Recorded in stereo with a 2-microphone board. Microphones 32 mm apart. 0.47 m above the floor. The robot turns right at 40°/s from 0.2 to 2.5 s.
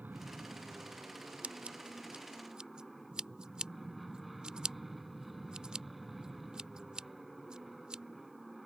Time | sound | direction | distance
0.0 | an aircraft | 100° right | ?
1.4 | scissors | 45° right (ahead or behind) | ?